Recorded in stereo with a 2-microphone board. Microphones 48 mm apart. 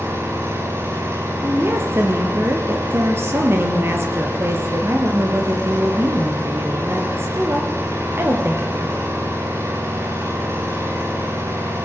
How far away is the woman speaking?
About 4.5 m.